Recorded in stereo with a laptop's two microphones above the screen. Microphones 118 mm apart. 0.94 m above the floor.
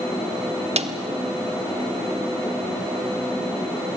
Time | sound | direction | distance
0.8 | a snare drum | 65° right (ahead or behind) | 1.3 m